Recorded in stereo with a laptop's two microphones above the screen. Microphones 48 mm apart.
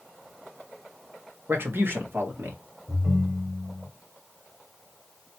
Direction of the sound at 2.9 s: 35° right (ahead or behind).